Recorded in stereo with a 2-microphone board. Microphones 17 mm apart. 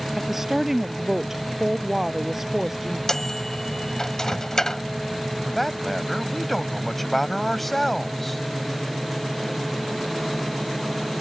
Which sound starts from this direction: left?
A microwave, at 3.1 s.